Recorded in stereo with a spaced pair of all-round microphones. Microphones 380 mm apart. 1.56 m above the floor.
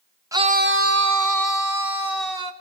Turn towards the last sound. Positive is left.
turn(degrees=-70)  # may be behind; listen again after turning